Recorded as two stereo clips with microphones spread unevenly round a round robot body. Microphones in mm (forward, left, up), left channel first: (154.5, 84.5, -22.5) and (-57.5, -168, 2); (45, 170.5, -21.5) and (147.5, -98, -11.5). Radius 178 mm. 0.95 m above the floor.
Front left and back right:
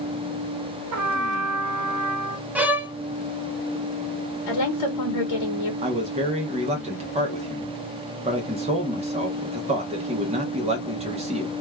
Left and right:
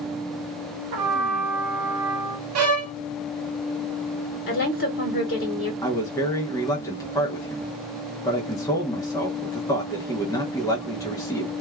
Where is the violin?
50° right, 0.6 m.